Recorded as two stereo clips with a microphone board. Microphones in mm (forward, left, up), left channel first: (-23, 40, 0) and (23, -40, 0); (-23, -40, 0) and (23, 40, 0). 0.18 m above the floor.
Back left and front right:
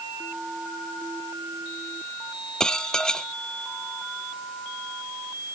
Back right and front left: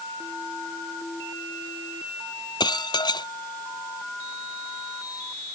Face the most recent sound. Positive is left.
turn(degrees=-155)